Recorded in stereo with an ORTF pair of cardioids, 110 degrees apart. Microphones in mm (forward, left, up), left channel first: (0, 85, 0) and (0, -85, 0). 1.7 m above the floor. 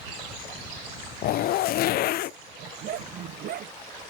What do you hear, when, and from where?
1.2 s a zipper: 65° left
2.6 s a dog barking: 60° right